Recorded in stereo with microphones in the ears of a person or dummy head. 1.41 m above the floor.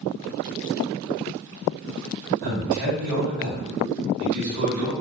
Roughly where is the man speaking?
Right.